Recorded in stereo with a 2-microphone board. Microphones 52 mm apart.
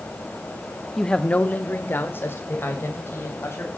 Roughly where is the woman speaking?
Centre.